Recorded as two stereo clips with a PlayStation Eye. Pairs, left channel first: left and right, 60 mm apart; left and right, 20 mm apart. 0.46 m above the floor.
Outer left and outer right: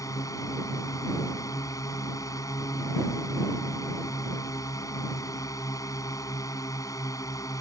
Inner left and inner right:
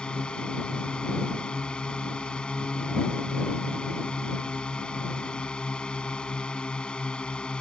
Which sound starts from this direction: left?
A drone, at 0.0 s.